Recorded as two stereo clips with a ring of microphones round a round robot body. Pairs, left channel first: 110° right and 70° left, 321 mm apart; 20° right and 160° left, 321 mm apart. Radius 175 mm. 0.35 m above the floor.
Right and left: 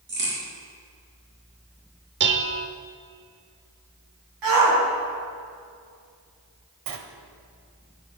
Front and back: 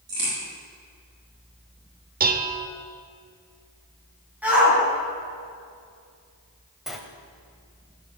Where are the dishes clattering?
105° left, 0.9 m.